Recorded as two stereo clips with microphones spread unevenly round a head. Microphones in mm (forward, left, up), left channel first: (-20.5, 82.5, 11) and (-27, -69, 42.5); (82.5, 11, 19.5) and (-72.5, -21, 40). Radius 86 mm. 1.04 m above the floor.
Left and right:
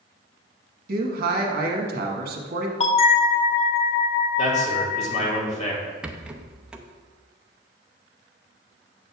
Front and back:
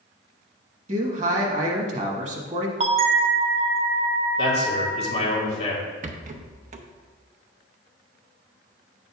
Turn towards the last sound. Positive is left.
turn(degrees=175)